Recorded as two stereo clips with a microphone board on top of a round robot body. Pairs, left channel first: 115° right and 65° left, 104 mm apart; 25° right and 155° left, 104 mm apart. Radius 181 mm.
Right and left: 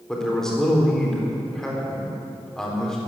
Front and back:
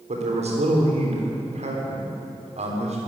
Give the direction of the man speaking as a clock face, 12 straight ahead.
7 o'clock.